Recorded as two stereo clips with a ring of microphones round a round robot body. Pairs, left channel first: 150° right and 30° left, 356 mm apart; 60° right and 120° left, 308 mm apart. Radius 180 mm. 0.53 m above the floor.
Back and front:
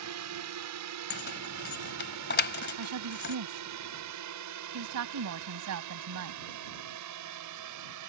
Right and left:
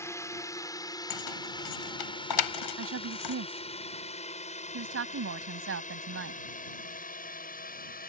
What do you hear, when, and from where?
0.0 s a drone: 15° left; by 8.1 s 5° right
1.1 s keys jangling: 90° right
2.8 s a woman speaking: 75° left